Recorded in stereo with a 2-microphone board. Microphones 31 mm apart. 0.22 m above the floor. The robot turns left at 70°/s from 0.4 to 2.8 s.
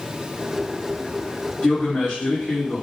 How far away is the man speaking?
About 1.9 m.